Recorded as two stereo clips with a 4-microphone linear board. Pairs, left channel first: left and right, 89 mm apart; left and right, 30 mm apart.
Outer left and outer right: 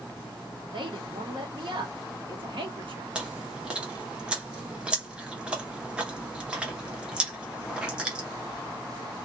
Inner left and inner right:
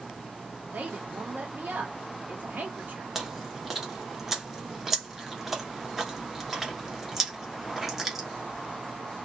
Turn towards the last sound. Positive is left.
turn(degrees=-10)  # may be behind; listen again after turning